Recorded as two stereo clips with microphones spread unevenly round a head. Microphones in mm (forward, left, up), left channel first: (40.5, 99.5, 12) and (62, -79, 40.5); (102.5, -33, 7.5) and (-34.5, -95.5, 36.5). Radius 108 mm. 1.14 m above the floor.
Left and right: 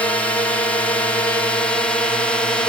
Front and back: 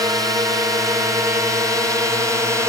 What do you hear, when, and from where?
0.0 s a drone: 145° left; by 2.7 s 135° left